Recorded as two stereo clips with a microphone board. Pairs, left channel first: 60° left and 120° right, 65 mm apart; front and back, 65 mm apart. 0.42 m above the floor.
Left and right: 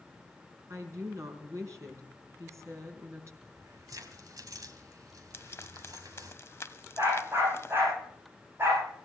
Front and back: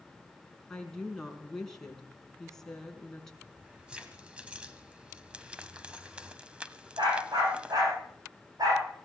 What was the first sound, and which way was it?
A woman speaking, 80° right.